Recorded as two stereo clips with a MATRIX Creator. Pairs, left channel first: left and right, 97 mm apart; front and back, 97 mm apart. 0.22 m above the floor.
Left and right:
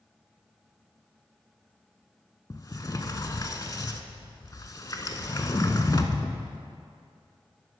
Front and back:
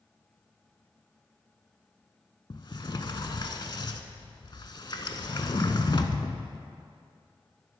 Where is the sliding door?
40° left, 0.5 m.